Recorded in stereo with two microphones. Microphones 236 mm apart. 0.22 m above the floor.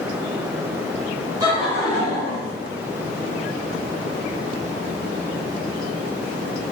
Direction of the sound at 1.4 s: 20° right (ahead or behind).